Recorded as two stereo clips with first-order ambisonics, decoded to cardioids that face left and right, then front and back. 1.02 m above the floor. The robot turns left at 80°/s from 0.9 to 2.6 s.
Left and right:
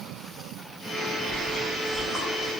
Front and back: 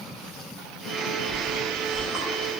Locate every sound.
1.3 s chewing: 65° left, 0.6 m; by 2.5 s 35° right, 0.6 m